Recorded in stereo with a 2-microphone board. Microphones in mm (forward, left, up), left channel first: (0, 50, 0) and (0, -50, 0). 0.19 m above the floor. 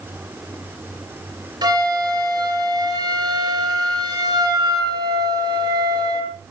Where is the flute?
40° right (ahead or behind), 4 m.